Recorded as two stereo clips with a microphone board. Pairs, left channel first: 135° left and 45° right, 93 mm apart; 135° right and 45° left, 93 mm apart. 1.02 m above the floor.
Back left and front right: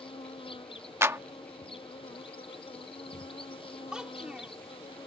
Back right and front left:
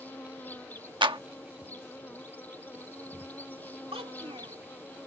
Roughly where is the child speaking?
Ahead left.